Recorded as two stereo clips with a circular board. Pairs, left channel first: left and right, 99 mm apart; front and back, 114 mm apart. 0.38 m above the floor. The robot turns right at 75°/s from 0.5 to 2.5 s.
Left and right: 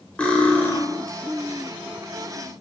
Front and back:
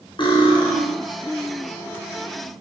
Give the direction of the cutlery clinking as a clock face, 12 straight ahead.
11 o'clock.